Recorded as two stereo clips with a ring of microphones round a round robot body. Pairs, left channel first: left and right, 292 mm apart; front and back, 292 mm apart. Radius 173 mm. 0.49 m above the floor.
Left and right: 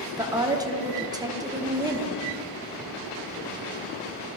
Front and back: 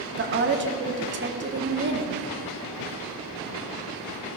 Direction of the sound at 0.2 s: 160° right.